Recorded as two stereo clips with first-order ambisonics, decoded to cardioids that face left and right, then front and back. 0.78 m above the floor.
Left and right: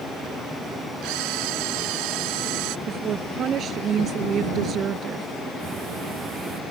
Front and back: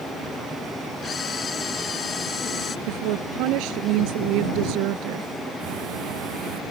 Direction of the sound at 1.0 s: 70° right.